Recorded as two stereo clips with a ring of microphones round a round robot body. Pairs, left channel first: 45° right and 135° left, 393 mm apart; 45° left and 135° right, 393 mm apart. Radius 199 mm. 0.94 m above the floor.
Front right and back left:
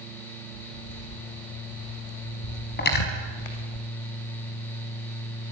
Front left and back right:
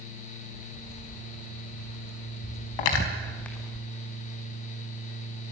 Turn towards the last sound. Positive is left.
turn(degrees=20)